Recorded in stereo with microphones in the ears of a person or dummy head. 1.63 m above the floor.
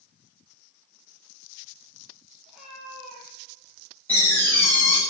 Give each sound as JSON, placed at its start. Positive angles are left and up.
{"t": 2.5, "sound": "a cat meowing", "side_deg": -5, "distance_m": 7.0}
{"t": 4.1, "sound": "a door slam", "side_deg": 10, "distance_m": 8.0}